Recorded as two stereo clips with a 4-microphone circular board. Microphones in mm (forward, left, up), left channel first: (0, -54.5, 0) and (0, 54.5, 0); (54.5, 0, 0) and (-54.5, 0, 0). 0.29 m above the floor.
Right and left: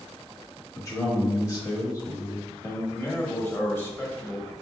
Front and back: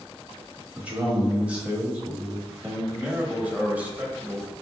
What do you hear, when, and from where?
0.8 s a man speaking: 110° right, 1.0 m
2.9 s a man speaking: 130° right, 1.0 m